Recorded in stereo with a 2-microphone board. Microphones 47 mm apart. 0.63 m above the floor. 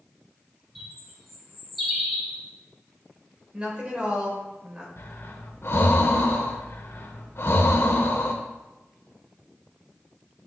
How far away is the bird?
About 1.8 m.